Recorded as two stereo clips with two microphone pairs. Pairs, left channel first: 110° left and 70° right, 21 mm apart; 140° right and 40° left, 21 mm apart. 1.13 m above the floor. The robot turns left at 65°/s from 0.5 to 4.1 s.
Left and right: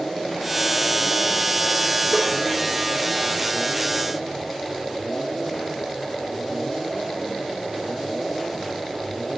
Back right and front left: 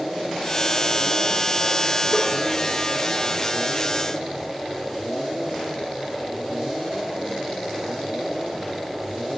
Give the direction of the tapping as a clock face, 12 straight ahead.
3 o'clock.